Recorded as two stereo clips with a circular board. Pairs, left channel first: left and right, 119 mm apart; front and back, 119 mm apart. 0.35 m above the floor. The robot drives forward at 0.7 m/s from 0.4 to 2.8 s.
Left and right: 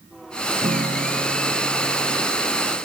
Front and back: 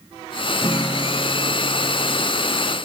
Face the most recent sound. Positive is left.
turn(degrees=-70)